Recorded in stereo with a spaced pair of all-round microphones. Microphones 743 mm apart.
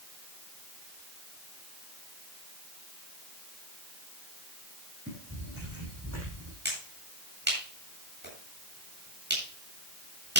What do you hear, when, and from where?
5.1 s footsteps: 15° right (ahead or behind), 6 m; by 6.5 s 20° right (ahead or behind), 6 m
6.7 s a finger snap: 15° right (ahead or behind), 8.5 m